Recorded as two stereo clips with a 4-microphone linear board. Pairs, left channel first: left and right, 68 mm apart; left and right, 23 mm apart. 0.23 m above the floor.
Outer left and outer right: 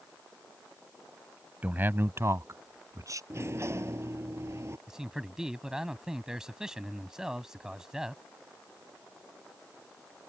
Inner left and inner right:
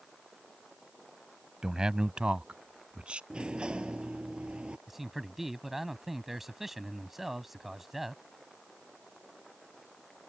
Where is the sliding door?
40° right (ahead or behind).